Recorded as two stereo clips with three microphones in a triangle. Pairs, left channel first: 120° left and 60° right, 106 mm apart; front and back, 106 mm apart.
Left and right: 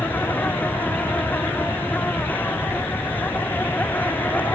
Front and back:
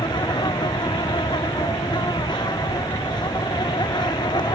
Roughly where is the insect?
Ahead left.